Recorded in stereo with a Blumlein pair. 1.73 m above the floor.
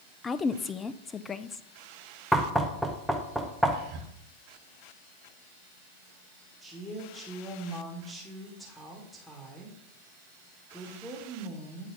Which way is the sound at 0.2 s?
15° left.